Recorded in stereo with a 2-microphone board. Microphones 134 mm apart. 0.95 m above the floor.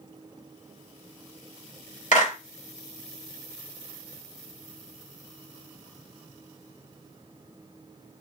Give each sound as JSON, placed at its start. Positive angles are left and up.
{"t": 2.1, "sound": "a clap", "side_deg": 65, "distance_m": 1.2}